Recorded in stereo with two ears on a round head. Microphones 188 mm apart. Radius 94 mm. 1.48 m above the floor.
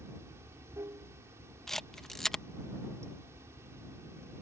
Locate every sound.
0.0 s running water: 15° right (ahead or behind)
1.7 s a camera shutter: centre (ahead or behind)